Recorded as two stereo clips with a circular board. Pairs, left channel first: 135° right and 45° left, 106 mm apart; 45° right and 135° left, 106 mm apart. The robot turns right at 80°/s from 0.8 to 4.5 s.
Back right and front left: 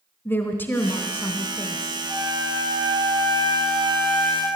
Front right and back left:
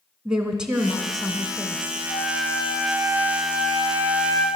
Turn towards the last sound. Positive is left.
turn(degrees=170)